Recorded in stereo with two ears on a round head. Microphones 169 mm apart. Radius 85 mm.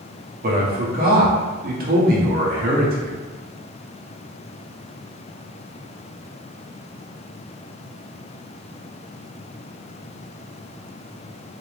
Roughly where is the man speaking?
Right.